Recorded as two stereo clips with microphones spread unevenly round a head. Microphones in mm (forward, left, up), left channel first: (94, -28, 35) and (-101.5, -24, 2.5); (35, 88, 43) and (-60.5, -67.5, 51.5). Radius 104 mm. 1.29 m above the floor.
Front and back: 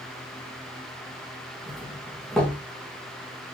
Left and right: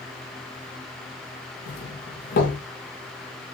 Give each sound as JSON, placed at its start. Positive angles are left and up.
{"t": 1.7, "sound": "a doorbell", "azimuth_deg": 90, "distance_m": 3.0}